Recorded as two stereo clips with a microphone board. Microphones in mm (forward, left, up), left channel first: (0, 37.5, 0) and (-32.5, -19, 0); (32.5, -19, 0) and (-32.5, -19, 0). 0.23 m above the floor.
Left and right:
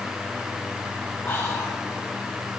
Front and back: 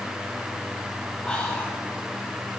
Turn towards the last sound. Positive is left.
turn(degrees=60)